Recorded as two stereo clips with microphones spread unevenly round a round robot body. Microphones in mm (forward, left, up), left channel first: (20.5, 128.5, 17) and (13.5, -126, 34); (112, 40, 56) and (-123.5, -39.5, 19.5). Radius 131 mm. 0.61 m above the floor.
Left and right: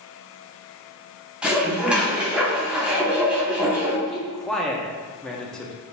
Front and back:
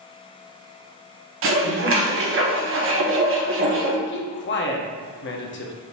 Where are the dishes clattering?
Straight behind, 0.8 m.